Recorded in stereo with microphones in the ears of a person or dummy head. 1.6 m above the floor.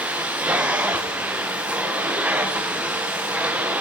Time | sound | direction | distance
0.0 | a machine running | 10° right (ahead or behind) | 0.7 m